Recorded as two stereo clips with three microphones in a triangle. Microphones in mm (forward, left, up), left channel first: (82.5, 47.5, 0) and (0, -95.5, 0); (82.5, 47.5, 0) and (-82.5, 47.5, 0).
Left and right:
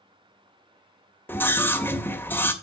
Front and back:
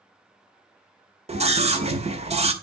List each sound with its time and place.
1.3 s a scream: 135° left, 1.9 m